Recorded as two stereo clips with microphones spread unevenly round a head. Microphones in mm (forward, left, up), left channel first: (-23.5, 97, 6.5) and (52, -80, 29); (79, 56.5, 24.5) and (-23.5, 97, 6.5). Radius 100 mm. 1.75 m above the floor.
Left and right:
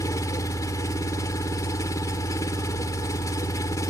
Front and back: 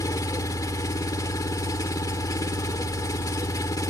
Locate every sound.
0.0 s an engine running: 35° left